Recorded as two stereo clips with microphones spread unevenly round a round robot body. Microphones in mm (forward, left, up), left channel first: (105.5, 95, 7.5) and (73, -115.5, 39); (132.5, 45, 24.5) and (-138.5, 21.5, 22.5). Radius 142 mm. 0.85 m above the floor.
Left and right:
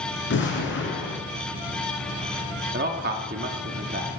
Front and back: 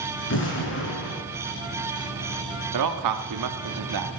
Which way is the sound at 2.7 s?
160° right.